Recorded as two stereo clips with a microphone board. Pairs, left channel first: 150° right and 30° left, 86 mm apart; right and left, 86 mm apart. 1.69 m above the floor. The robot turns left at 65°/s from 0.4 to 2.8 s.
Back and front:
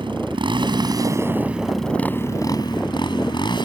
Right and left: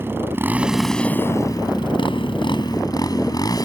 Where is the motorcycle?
25° left; by 3.6 s 130° right.